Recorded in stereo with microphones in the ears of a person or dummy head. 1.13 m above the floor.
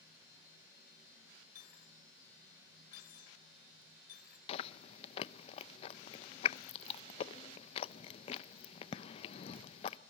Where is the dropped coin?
55° left (ahead or behind), 1.7 m.